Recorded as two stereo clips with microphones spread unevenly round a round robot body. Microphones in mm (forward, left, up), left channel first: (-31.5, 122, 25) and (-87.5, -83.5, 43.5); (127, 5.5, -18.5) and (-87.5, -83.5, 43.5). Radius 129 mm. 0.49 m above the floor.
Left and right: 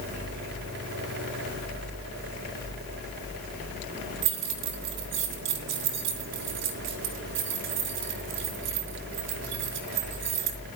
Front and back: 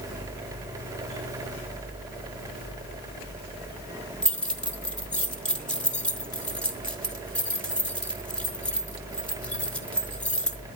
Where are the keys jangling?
60° right, 2 m.